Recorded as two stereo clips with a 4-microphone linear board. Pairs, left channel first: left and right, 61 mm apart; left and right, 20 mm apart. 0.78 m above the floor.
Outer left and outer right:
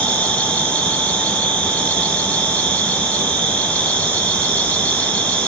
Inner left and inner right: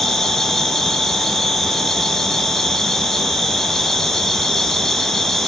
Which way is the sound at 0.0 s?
20° left (ahead or behind).